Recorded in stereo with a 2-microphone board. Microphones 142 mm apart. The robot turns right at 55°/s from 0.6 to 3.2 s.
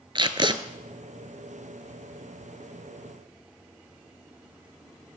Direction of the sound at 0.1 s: 35° right (ahead or behind).